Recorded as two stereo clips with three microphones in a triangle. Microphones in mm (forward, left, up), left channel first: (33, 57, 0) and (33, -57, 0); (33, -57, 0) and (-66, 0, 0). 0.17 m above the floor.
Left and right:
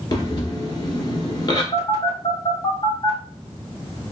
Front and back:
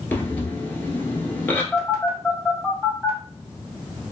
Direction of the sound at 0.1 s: 40° left.